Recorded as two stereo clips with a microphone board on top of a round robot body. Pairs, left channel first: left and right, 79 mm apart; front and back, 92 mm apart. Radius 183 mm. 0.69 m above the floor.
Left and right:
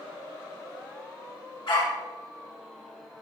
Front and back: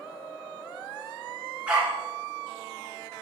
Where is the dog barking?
105° left, 4 m.